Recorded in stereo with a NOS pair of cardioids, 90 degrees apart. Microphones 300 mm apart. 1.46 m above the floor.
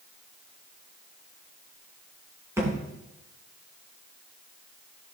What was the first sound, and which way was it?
A thud, 10° right.